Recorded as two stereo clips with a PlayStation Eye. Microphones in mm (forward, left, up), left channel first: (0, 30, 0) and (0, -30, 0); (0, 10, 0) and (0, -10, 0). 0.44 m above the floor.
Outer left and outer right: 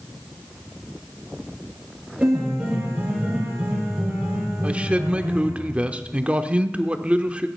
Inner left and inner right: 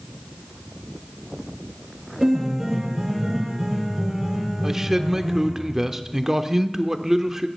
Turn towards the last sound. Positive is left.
turn(degrees=-20)  # may be behind; listen again after turning